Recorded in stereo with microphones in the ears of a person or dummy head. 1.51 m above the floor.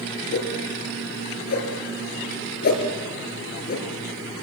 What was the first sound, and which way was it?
A whoosh, 55° left (ahead or behind).